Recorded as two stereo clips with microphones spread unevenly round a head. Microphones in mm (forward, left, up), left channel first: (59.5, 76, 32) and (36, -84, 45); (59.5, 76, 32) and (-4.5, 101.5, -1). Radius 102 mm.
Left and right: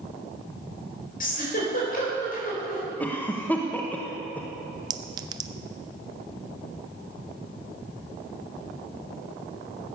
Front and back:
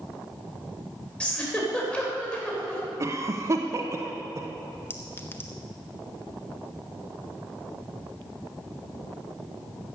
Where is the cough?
160° left, 1.0 m.